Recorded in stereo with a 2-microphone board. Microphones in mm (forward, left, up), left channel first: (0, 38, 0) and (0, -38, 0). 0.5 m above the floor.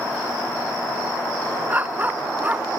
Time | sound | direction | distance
1.7 | a dog barking | 20° right (ahead or behind) | ?